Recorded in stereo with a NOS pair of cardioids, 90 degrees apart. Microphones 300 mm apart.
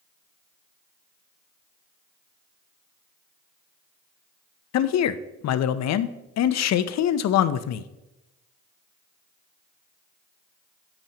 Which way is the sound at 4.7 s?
60° left.